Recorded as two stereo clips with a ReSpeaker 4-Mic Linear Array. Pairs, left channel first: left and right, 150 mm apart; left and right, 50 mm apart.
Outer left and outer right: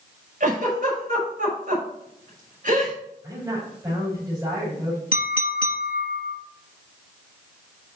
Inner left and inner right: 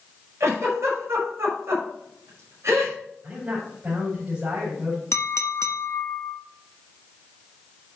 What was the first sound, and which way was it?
A giggle, 60° right (ahead or behind).